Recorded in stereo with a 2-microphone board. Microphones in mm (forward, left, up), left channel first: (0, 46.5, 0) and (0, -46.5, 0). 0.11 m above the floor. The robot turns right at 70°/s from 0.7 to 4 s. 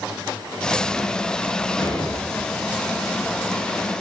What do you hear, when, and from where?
1.8 s an explosion: 50° left, 4 m; by 2.9 s 130° left, 4 m